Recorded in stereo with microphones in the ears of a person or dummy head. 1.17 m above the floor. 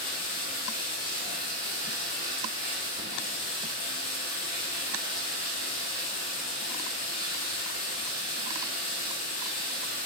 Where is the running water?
45° left (ahead or behind), 0.9 m.